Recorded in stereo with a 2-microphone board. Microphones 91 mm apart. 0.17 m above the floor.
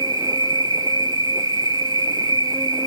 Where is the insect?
45° right (ahead or behind), 0.9 m.